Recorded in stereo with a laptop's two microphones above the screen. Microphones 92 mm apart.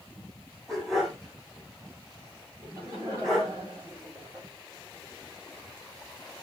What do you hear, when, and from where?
0.7 s a dog barking: centre (ahead or behind), 3.5 m
2.6 s laughter: 30° right (ahead or behind), 4.5 m